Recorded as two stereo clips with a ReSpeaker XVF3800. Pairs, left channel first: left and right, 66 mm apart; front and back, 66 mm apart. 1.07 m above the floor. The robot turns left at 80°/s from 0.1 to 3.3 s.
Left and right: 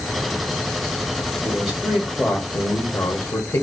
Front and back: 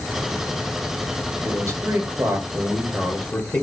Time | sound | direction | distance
1.4 | a man speaking | 155° right | 1.0 m